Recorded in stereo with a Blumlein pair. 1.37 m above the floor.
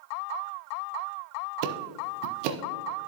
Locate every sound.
1.6 s ticking: 45° right, 0.6 m